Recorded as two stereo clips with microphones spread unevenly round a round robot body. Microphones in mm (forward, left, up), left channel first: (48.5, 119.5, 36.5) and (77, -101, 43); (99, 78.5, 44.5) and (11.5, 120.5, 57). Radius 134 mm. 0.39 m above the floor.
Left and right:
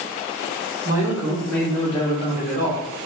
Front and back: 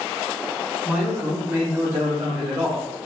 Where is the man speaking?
140° right, 0.9 m; by 3.1 s 80° left, 1.3 m.